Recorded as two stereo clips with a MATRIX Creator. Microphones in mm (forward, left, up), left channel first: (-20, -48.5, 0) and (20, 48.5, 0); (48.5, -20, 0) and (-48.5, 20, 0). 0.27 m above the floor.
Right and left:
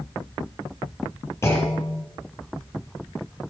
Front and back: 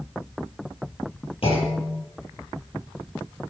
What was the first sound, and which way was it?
A clunk, 50° right.